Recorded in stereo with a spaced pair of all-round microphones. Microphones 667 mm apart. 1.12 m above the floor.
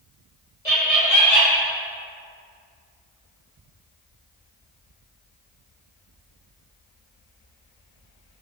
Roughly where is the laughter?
Left.